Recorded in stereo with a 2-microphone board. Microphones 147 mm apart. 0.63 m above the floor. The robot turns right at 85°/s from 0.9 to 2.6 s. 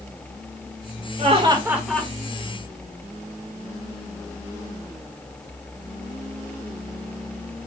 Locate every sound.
1.2 s laughter: 60° right, 1.6 m; by 2.1 s 20° left, 1.6 m